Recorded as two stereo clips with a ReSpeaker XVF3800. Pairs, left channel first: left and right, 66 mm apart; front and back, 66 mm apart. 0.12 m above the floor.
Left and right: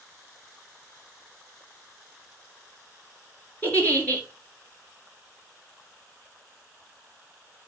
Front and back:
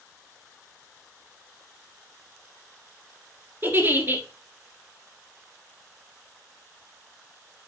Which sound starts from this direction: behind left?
A giggle, at 3.6 s.